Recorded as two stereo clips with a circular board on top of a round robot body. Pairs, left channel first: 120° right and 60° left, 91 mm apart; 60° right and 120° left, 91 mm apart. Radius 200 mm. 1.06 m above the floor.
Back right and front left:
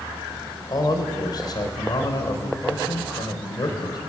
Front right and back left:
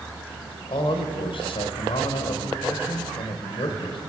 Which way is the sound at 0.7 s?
80° right.